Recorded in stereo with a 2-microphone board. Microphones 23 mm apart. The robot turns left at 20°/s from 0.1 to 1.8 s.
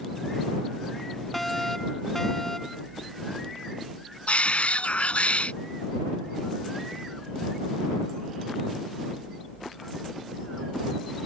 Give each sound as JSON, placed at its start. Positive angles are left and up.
{"t": 1.3, "sound": "a fire alarm", "side_deg": 10}
{"t": 4.3, "sound": "a shout", "side_deg": 70}